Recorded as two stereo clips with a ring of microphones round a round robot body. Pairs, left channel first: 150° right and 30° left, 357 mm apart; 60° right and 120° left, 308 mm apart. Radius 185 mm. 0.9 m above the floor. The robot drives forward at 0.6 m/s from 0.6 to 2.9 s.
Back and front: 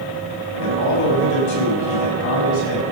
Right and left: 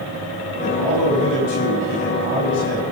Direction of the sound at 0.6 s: 100° right.